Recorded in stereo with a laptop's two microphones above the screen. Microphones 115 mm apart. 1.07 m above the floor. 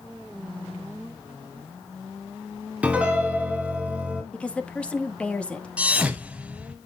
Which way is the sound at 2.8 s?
10° right (ahead or behind).